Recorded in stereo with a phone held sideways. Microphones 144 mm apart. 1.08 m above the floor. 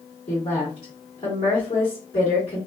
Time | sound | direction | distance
0.3 | a woman speaking | 45° left (ahead or behind) | 1.7 m